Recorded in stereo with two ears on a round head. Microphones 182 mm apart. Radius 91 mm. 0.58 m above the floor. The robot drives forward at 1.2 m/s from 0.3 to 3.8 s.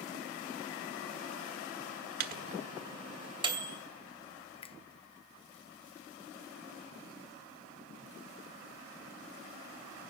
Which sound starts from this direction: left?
A finger snap, at 4.6 s.